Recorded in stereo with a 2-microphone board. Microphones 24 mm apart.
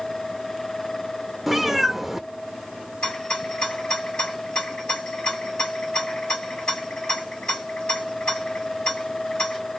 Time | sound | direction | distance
1.5 | a cat meowing | 10° right (ahead or behind) | 0.5 m
3.0 | a rattle | 40° left (ahead or behind) | 2.5 m